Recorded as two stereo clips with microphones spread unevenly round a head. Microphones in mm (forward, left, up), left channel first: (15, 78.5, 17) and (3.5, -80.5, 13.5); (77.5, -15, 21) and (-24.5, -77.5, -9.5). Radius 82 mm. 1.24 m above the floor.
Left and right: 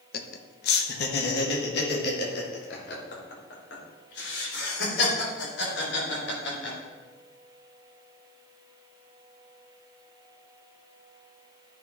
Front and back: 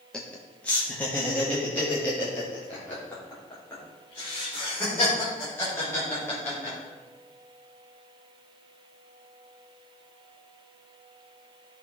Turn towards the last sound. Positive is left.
turn(degrees=110)